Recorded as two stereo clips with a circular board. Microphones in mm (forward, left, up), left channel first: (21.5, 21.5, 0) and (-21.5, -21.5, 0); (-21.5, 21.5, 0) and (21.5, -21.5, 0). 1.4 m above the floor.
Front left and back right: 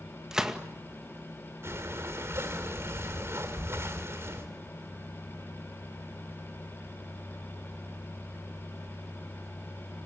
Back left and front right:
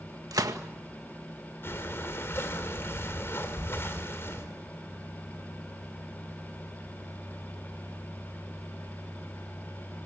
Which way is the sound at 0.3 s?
55° right.